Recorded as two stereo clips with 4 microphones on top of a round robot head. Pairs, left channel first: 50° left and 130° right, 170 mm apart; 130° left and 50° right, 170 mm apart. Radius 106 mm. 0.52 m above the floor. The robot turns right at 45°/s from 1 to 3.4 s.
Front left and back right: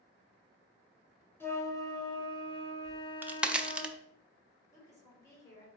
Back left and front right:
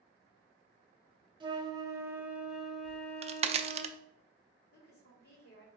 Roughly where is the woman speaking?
Behind left.